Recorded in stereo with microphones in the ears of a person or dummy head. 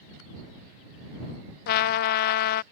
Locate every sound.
1.7 s a trumpet: 55° left (ahead or behind)